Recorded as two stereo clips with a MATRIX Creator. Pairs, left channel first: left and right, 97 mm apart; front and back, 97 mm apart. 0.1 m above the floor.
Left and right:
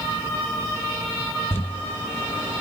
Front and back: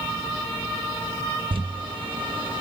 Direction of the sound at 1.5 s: 155° left.